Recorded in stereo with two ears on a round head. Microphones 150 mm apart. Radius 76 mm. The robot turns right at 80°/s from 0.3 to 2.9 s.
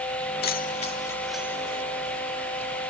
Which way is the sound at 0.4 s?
65° left (ahead or behind).